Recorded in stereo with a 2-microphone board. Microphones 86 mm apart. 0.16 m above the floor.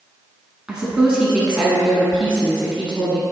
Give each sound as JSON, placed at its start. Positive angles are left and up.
{"t": 0.7, "sound": "a woman speaking", "side_deg": -10, "distance_m": 1.1}